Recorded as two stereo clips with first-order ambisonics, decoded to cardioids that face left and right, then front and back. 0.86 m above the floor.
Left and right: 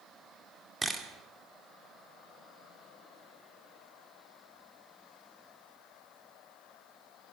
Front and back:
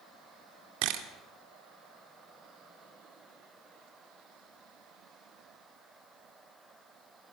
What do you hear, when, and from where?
0.8 s a camera shutter: 170° right, 2 m